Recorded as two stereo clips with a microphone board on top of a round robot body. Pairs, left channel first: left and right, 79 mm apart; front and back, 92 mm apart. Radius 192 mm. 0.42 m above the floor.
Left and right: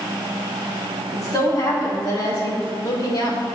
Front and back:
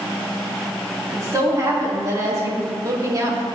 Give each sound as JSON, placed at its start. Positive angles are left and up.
{"t": 1.1, "sound": "a woman speaking", "azimuth_deg": 130, "distance_m": 4.5}